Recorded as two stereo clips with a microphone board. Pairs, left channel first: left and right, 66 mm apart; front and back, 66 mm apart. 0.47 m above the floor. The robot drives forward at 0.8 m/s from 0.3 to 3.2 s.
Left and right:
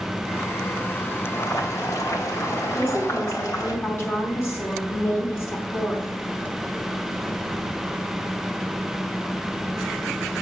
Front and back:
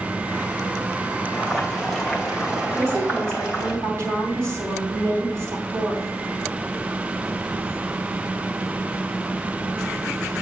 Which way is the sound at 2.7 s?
135° left.